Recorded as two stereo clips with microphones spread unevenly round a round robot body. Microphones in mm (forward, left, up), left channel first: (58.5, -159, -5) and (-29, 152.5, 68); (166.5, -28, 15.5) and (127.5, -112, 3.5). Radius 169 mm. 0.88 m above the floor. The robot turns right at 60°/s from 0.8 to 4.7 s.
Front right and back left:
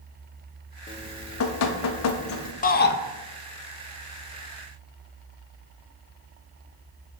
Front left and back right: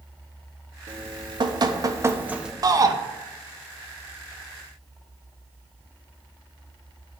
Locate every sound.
0.9 s dripping: 135° right, 1.1 m; by 2.5 s 35° right, 1.1 m
2.6 s a shout: 110° right, 0.8 m; by 3.0 s 90° right, 0.8 m